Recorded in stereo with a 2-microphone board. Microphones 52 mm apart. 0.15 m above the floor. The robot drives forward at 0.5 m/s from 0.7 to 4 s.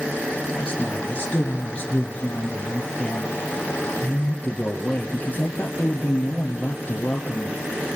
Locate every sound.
0.5 s a man speaking: 20° left (ahead or behind), 4 m; by 7.7 s 30° left (ahead or behind), 3 m